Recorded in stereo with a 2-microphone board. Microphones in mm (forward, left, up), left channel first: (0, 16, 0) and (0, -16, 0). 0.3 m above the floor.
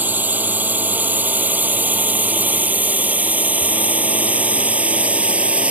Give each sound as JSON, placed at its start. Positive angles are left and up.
{"t": 0.0, "sound": "a drone", "side_deg": -65}